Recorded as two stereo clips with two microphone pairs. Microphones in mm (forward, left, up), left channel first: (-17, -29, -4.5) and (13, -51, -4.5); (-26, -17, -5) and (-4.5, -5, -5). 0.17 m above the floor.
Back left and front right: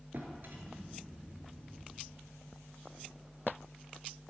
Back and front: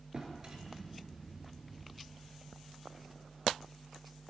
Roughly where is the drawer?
Ahead right.